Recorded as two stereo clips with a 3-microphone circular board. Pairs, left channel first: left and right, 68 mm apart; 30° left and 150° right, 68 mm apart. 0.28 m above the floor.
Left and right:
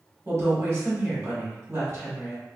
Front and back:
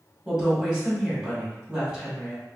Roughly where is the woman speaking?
Right.